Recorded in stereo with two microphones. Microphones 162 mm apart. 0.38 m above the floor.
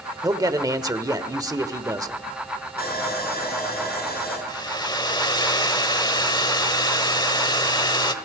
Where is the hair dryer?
30° left (ahead or behind), 1.1 m.